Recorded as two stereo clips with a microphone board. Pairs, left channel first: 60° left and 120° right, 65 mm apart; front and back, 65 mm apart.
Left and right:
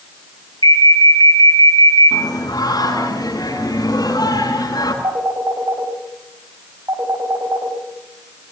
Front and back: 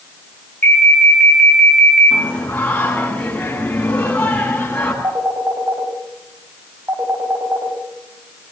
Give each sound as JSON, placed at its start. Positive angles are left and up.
{"t": 0.6, "sound": "an alarm", "azimuth_deg": 55, "distance_m": 5.5}
{"t": 2.1, "sound": "singing", "azimuth_deg": 70, "distance_m": 8.0}
{"t": 5.0, "sound": "a phone ringing", "azimuth_deg": -135, "distance_m": 6.0}